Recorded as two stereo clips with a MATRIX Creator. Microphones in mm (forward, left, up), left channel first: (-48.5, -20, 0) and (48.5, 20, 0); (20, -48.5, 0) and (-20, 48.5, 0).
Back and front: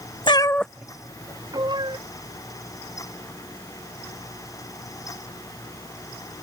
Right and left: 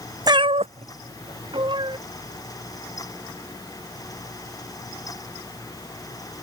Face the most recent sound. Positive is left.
turn(degrees=65)